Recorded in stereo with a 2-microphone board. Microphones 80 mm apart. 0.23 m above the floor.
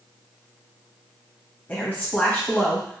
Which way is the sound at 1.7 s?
25° left (ahead or behind).